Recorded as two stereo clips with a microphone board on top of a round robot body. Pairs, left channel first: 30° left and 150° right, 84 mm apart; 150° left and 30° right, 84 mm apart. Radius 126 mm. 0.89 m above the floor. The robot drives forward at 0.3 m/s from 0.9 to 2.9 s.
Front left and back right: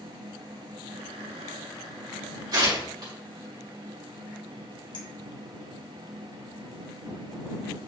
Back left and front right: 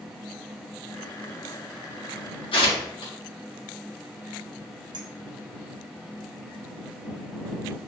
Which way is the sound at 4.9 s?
5° left.